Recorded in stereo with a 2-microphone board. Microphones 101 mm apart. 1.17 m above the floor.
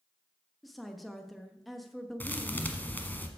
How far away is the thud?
About 1.1 m.